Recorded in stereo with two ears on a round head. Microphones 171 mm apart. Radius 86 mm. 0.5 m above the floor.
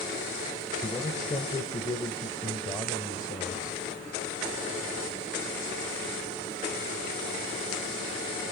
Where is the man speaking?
20° left (ahead or behind), 2.5 m.